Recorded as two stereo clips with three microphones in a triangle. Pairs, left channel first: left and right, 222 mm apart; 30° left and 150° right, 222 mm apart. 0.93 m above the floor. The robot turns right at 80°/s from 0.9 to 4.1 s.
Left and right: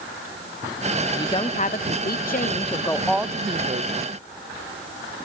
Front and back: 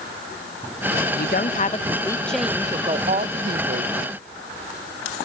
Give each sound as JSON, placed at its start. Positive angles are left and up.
{"t": 1.1, "sound": "a woman speaking", "azimuth_deg": 15, "distance_m": 0.7}